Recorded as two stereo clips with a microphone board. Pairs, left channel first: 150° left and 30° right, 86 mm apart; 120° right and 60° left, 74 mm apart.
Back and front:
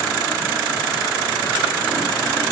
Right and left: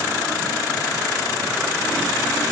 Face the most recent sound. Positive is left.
No sound to turn to.